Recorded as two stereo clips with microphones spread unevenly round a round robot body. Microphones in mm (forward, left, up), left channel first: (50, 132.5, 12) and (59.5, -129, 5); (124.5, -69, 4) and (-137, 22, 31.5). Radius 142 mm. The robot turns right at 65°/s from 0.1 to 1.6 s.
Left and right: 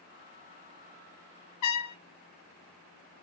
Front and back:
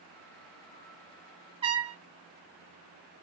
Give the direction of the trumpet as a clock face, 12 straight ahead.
9 o'clock.